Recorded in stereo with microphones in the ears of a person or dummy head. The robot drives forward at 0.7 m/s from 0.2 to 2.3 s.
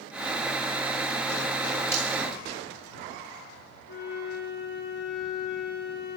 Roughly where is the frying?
Centre.